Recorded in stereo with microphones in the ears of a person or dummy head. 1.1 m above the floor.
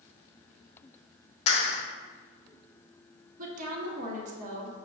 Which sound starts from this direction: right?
A woman speaking, at 3.4 s.